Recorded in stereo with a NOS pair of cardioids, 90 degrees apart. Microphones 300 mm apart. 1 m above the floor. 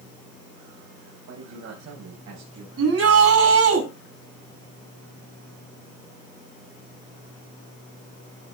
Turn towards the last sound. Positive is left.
turn(degrees=-50)